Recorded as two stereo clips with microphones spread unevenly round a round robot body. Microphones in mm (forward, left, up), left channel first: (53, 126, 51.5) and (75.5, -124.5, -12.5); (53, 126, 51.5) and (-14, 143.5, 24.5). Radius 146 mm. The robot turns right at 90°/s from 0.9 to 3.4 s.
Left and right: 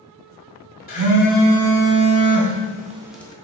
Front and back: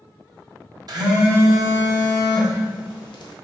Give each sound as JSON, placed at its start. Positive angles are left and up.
{"t": 0.9, "sound": "a phone buzzing", "azimuth_deg": 160, "distance_m": 0.6}